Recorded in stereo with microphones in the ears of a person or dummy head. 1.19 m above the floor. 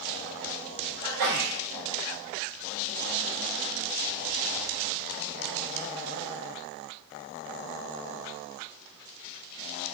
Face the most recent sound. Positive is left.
turn(degrees=-60)  # may be behind; listen again after turning